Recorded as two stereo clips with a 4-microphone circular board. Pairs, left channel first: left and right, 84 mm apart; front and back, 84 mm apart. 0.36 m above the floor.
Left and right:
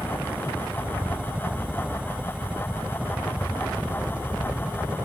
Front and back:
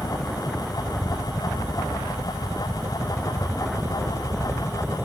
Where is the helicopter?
20° right; by 5.1 s 25° right.